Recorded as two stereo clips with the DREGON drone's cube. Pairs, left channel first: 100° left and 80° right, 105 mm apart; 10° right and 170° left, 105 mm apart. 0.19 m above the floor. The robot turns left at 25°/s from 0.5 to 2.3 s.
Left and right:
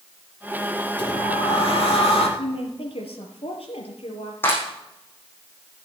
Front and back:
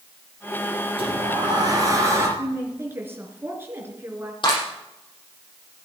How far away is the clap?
About 6 m.